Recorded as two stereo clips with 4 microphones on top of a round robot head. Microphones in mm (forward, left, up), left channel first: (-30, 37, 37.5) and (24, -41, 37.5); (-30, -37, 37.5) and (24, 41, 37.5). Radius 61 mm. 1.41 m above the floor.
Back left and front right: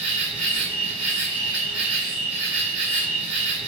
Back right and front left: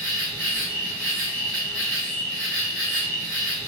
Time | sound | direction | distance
0.0 | an insect | 35° right | 1.7 m